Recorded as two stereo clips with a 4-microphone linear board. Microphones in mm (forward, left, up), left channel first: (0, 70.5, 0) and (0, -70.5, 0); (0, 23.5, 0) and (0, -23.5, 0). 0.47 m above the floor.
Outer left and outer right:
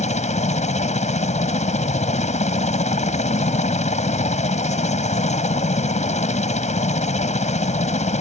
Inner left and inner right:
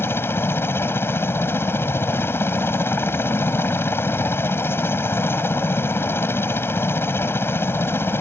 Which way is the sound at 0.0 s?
55° left (ahead or behind).